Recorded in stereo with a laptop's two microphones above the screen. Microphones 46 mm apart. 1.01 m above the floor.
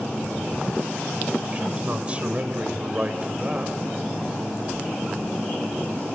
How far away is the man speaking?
About 3.5 m.